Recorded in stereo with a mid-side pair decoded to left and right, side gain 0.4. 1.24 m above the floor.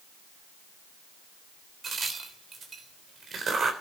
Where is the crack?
50° right, 3.5 m.